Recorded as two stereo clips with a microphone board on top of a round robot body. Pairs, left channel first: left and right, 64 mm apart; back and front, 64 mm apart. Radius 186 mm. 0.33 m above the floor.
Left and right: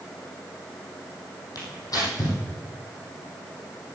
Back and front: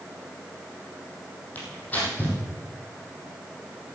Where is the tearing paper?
115° left, 4.5 m.